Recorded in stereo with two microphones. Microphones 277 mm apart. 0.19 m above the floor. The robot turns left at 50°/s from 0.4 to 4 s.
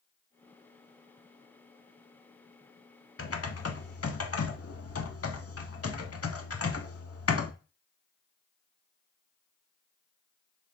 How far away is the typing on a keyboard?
About 0.5 m.